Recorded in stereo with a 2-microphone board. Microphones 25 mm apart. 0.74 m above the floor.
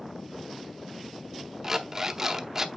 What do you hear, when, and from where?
1.6 s an alarm clock: 20° right (ahead or behind), 0.7 m